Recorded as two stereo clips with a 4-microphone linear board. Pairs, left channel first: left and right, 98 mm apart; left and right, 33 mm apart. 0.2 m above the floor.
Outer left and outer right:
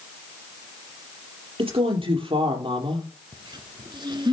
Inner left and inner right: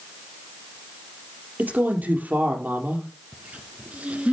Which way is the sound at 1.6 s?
60° right (ahead or behind).